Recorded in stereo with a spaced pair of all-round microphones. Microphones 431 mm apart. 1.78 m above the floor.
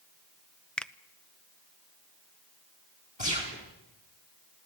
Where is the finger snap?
Centre (ahead or behind), 0.6 m.